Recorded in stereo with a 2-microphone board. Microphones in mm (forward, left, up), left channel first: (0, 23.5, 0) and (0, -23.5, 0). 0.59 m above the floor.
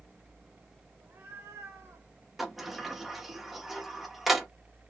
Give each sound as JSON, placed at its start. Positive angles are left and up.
{"t": 1.0, "sound": "a cat meowing", "side_deg": -55, "distance_m": 1.5}
{"t": 2.4, "sound": "a sliding door", "side_deg": -5, "distance_m": 1.0}